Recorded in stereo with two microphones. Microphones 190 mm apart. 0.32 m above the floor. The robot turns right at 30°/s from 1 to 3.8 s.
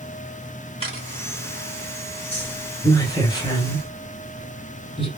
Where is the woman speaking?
10° left (ahead or behind), 1.3 m; by 5.1 s 30° left (ahead or behind), 1.3 m.